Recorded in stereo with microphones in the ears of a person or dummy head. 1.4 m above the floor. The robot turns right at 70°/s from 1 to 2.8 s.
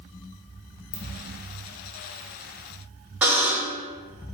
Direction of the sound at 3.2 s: 5° right (ahead or behind).